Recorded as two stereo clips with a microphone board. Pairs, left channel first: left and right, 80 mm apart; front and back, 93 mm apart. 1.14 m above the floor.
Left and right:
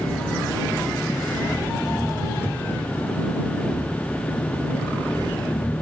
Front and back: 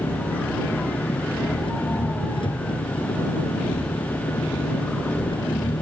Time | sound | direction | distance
0.0 | an engine running | 25° left | ?